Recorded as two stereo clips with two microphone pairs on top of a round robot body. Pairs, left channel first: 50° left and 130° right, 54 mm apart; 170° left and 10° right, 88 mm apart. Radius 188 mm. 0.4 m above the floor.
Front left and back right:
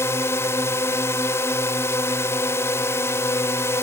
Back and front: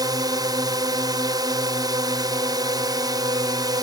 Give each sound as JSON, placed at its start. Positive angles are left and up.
{"t": 0.0, "sound": "a drone", "azimuth_deg": 25}